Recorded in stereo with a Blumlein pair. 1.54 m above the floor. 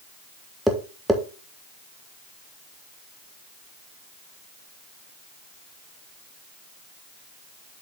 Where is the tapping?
5° right, 1.2 m.